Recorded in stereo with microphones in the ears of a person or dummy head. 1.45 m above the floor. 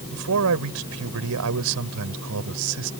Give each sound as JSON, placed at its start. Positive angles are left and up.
{"t": 0.1, "sound": "a man speaking", "side_deg": -75}